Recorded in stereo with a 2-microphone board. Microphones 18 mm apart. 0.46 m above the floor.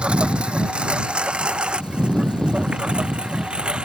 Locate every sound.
0.0 s a lawn mower: 80° right; by 3.9 s 65° right (ahead or behind)